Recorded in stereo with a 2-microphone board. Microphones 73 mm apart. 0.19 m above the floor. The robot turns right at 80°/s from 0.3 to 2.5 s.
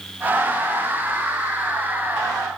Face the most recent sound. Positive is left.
No sound to turn to.